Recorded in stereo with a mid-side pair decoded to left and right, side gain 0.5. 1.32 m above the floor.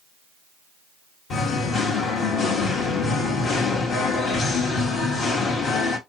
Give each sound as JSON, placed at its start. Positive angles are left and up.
{"t": 1.3, "sound": "singing", "azimuth_deg": 60, "distance_m": 1.4}